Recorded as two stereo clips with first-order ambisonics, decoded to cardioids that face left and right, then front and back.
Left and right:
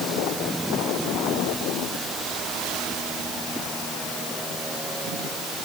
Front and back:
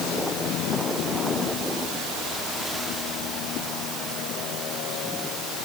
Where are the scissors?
No scissors in this recording.